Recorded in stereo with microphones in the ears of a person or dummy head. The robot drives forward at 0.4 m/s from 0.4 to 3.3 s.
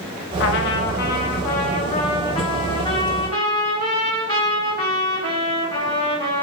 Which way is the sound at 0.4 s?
70° left (ahead or behind).